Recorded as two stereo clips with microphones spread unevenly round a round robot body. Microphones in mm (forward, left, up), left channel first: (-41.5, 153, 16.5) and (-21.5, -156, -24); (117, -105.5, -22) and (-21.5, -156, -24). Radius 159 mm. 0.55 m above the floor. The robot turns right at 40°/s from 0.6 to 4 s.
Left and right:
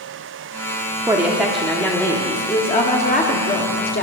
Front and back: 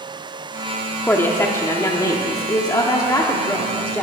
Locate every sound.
1.1 s a woman speaking: 35° right, 1.3 m; by 4.0 s 80° left, 1.3 m